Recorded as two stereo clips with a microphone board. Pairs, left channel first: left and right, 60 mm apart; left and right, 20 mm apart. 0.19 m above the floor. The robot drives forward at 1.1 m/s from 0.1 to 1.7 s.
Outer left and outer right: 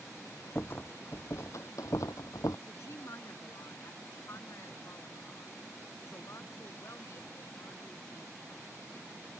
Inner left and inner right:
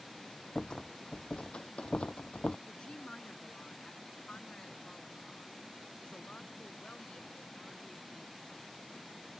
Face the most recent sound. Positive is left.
turn(degrees=55)  # may be behind; listen again after turning